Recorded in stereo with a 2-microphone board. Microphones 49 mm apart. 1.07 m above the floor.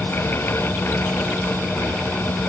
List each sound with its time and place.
Only background noise.